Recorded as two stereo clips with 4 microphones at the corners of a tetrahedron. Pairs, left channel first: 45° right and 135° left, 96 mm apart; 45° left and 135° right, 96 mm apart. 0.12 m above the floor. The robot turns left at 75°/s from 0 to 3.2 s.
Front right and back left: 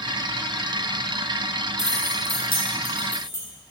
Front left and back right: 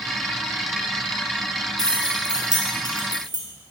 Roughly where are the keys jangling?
Ahead.